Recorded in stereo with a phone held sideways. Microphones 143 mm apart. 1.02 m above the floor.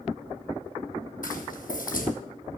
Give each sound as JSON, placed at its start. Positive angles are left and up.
{"t": 1.2, "sound": "footsteps", "side_deg": 70, "distance_m": 2.5}